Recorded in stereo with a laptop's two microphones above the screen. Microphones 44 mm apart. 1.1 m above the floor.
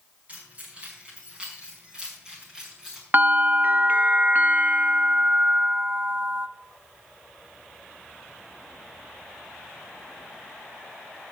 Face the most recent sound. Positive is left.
turn(degrees=-45)  # may be behind; listen again after turning